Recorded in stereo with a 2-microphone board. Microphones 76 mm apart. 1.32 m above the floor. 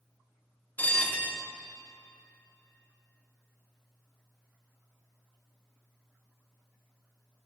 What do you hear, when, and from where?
0.8 s a bell: 20° left (ahead or behind), 1.0 m